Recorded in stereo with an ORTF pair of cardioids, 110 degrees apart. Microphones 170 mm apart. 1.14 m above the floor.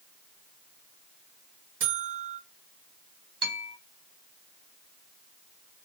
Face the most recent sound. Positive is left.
turn(degrees=-30)